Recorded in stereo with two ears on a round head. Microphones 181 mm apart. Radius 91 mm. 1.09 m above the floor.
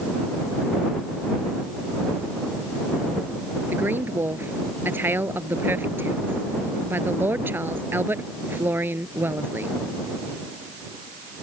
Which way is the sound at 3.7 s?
10° right (ahead or behind).